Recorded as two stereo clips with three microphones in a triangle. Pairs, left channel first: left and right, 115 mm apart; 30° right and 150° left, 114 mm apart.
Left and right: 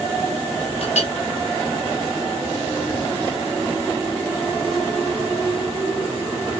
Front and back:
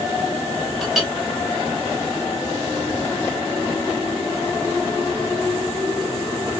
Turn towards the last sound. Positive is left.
turn(degrees=60)